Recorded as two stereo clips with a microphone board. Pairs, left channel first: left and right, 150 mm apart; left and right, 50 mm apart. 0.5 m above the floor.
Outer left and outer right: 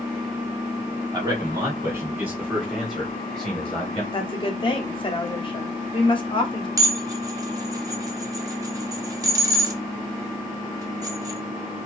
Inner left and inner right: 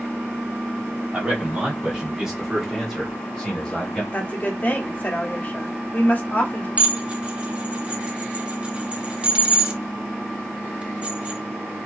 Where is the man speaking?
30° right (ahead or behind), 1.1 m; by 4.0 s 10° left (ahead or behind), 1.6 m.